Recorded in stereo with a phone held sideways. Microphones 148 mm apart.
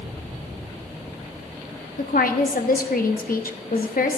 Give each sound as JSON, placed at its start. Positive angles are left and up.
{"t": 2.0, "sound": "a woman speaking", "side_deg": 75, "distance_m": 0.9}